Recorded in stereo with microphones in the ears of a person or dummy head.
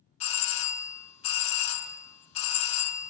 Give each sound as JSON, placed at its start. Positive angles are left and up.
{"t": 0.2, "sound": "a doorbell", "side_deg": 35, "distance_m": 1.0}